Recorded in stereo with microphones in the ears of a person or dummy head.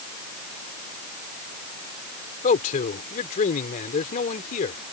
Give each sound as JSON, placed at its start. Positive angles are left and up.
{"t": 2.4, "sound": "a man speaking", "side_deg": 40}